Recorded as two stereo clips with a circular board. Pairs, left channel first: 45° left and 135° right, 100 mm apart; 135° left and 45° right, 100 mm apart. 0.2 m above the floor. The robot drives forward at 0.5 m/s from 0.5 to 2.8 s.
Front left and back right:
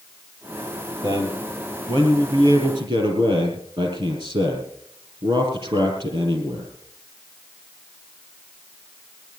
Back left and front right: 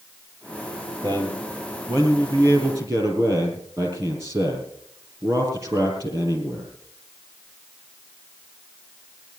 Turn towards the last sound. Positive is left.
turn(degrees=-105)